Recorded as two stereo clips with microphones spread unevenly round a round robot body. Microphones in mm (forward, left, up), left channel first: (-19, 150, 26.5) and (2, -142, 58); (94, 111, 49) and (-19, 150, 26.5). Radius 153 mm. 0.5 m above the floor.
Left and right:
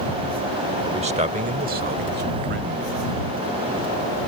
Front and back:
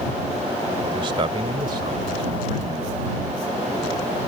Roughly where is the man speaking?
Behind.